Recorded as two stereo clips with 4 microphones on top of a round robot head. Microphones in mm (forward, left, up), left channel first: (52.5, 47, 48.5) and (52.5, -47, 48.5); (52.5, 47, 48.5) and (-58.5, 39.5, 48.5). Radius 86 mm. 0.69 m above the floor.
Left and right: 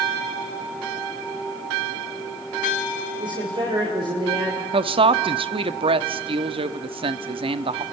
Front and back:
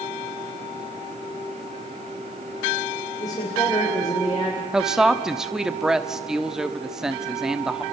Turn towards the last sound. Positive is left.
turn(degrees=-90)